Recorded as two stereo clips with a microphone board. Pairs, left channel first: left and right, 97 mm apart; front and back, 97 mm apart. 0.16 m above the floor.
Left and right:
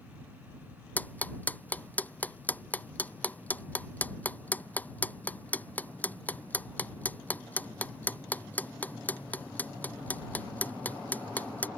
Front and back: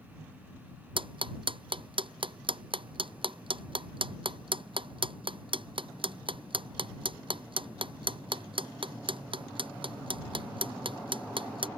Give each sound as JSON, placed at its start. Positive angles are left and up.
{"t": 1.0, "sound": "ticking", "azimuth_deg": 160}